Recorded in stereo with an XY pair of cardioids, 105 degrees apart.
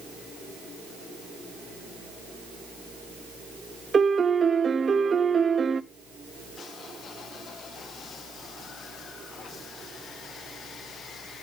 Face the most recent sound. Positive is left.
turn(degrees=-35)